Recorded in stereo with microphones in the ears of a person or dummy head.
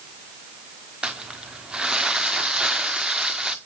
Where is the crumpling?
Centre (ahead or behind), 1.2 m.